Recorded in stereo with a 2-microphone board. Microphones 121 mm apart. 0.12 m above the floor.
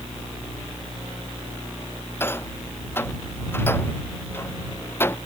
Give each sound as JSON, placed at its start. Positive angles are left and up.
{"t": 2.2, "sound": "a rattle", "side_deg": 20}